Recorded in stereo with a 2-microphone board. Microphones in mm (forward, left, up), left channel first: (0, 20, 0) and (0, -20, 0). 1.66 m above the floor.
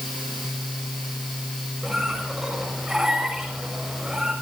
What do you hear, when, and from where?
1.8 s a squeak: 10° right (ahead or behind), 6 m